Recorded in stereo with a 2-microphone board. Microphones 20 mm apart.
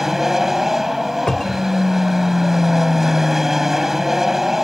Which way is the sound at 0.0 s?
20° right (ahead or behind).